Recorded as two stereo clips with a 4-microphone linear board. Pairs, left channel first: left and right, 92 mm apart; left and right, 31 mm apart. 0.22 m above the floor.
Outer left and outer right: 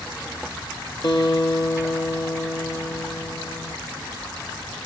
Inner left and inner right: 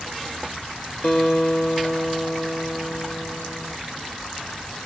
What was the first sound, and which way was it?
A guitar, 55° left (ahead or behind).